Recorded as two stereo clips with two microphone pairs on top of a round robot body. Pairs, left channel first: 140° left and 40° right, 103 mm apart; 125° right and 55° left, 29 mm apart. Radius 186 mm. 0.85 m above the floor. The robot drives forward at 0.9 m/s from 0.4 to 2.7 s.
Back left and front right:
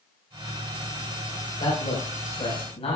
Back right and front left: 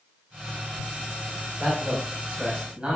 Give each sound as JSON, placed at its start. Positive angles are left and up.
{"t": 1.6, "sound": "a man speaking", "azimuth_deg": 105, "distance_m": 5.5}